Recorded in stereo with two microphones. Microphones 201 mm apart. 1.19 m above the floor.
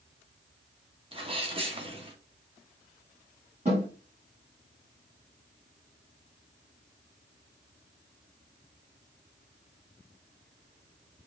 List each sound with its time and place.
1.1 s a sneeze: 30° right (ahead or behind), 1.2 m
3.6 s a snare drum: 35° right (ahead or behind), 1.9 m